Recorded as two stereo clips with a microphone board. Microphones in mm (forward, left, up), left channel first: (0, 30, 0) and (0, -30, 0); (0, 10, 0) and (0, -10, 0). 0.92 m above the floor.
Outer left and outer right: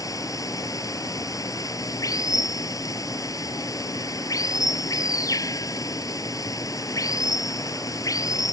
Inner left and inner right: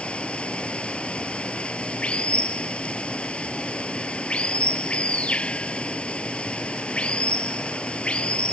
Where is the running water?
70° left (ahead or behind).